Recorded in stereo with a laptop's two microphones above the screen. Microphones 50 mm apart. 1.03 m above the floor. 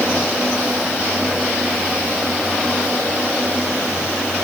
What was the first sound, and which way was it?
Only background noise.